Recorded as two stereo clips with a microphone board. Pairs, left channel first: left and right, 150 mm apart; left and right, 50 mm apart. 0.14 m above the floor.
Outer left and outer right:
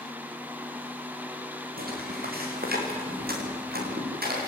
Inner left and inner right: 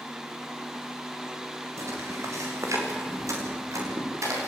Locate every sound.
1.8 s footsteps: 75° right (ahead or behind), 7.5 m; by 4.5 s 90° right, 8.5 m